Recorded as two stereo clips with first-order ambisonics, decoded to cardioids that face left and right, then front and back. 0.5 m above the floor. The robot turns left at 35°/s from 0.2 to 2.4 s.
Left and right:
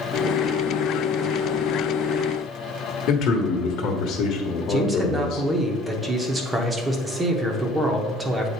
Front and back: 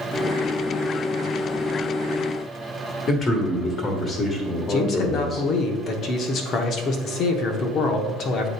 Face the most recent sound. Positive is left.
turn(degrees=-15)